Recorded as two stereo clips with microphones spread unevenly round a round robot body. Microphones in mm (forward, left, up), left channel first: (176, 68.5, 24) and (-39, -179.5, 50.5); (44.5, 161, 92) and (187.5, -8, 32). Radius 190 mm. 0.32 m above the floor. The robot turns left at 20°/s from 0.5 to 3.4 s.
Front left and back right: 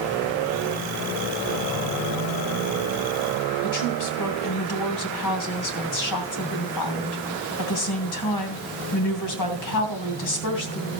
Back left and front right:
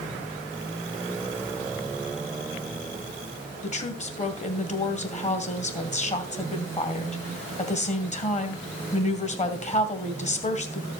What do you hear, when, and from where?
3.6 s a woman speaking: 65° left, 2.5 m